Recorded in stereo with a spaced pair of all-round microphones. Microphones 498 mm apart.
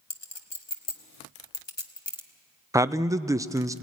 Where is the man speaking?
5° right (ahead or behind), 0.5 m.